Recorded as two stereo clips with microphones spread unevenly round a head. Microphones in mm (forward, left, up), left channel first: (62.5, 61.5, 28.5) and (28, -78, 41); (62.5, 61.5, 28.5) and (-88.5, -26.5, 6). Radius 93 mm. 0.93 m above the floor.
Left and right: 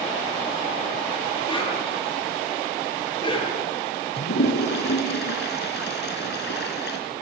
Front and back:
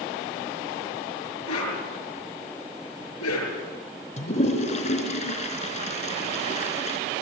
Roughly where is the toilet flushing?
Left.